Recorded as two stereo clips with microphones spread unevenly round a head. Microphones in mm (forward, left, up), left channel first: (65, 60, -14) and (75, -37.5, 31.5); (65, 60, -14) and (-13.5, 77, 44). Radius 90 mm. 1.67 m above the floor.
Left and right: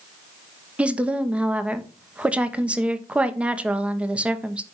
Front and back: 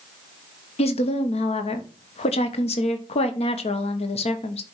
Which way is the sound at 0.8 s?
15° right.